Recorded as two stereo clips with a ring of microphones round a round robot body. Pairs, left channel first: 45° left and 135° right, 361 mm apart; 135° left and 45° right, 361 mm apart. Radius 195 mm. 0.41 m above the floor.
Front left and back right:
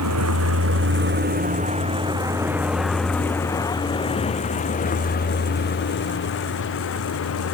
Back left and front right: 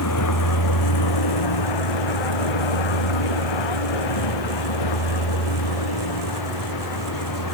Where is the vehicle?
Straight behind; by 7.5 s 100° left.